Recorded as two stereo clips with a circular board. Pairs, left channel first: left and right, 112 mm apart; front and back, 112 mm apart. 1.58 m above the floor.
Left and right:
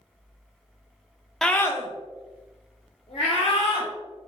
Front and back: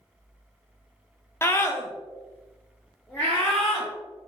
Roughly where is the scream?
Ahead.